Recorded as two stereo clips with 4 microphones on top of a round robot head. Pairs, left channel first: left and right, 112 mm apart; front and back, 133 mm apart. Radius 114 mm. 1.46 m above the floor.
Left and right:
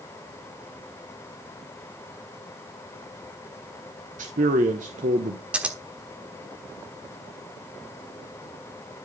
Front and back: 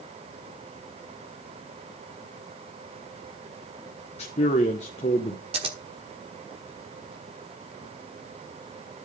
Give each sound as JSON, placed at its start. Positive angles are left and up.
{"t": 4.2, "sound": "a man speaking", "azimuth_deg": -55, "distance_m": 0.9}
{"t": 5.5, "sound": "scissors", "azimuth_deg": -160, "distance_m": 1.1}